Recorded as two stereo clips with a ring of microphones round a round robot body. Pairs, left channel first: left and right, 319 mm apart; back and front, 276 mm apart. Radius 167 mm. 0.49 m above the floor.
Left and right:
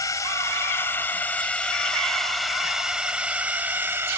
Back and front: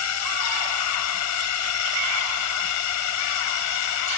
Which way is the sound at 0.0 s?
170° left.